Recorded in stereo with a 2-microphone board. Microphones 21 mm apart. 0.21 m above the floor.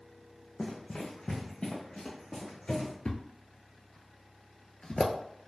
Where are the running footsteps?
50° left (ahead or behind), 0.8 m; by 2.9 s 60° left (ahead or behind), 2.5 m.